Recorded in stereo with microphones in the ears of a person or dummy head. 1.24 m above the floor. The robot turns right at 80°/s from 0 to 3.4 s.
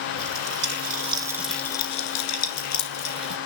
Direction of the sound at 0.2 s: 75° right (ahead or behind).